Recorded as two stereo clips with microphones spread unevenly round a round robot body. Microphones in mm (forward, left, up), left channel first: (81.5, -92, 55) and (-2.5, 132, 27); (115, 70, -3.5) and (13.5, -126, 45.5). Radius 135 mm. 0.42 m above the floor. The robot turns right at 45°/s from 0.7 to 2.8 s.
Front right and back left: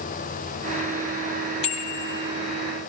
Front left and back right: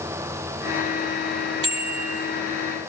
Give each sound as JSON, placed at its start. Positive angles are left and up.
{"t": 1.6, "sound": "a bicycle bell", "azimuth_deg": -85, "distance_m": 9.0}